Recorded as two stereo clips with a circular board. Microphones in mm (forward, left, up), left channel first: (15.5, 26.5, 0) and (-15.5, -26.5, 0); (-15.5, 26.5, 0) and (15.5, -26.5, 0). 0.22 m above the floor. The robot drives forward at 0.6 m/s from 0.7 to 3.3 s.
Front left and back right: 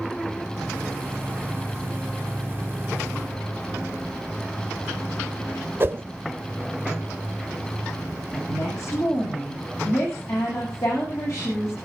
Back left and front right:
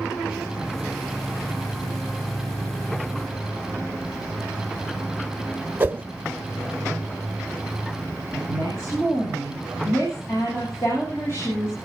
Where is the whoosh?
105° right, 0.6 m.